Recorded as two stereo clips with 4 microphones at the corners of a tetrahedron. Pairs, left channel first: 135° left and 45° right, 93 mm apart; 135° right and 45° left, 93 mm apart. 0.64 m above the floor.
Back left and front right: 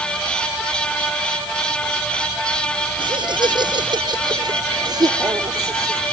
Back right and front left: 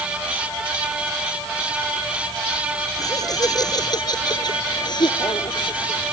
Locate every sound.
3.0 s laughter: 85° right; by 6.1 s 95° right